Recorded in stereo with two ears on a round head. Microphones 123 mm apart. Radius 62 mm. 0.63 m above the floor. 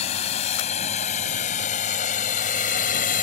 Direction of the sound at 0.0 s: 45° left (ahead or behind).